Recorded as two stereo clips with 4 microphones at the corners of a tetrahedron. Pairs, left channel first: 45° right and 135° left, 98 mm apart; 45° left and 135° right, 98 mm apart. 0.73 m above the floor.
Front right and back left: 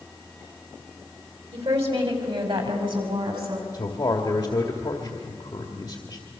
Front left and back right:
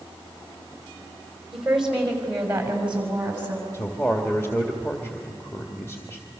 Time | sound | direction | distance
1.5 | a woman speaking | 140° left | 5 m
3.7 | a man speaking | 15° right | 1.8 m